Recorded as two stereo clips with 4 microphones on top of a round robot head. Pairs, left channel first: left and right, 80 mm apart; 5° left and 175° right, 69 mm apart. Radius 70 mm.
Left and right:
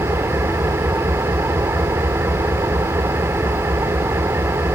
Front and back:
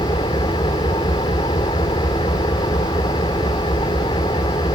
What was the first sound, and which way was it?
An engine running, 30° right.